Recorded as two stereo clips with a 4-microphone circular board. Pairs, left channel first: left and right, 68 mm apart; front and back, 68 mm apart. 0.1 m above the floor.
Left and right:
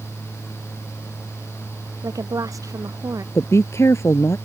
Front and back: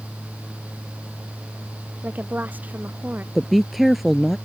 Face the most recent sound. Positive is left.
turn(degrees=90)